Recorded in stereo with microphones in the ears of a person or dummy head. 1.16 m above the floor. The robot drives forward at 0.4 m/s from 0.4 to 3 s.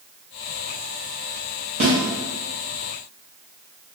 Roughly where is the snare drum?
Right.